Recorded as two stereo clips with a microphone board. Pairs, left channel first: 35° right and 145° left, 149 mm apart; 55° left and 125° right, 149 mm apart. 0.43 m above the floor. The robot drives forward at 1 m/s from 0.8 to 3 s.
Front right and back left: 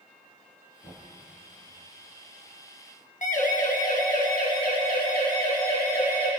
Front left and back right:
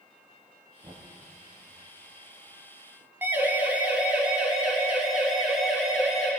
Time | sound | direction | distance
0.8 | knocking | 75° right | 6.5 m
3.2 | a siren | 50° right | 4.5 m